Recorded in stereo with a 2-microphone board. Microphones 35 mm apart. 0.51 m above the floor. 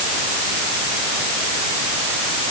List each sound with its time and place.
Only background noise.